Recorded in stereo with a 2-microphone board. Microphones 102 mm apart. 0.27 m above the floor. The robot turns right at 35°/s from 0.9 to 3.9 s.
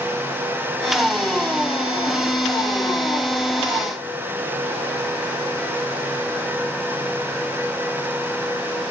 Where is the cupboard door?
No cupboard door in this recording.